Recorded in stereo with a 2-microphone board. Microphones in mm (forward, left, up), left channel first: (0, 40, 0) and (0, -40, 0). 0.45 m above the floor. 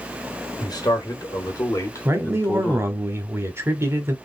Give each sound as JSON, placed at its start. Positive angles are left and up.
{"t": 0.6, "sound": "a man speaking", "side_deg": 60, "distance_m": 1.7}
{"t": 2.0, "sound": "a man speaking", "side_deg": -35, "distance_m": 1.0}